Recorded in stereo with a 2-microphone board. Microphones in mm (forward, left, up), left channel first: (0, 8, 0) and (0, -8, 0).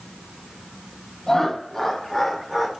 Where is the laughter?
30° left (ahead or behind), 1.2 m; by 2.7 s 20° right (ahead or behind), 1.1 m.